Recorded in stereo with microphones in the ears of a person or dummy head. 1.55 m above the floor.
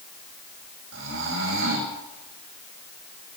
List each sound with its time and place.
0.9 s snoring: 75° right (ahead or behind), 7.5 m